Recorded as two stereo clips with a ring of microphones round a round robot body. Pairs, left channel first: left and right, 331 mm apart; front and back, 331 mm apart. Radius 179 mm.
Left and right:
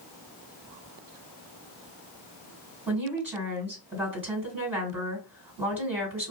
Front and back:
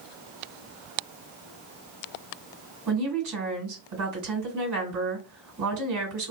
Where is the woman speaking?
175° right, 2 m.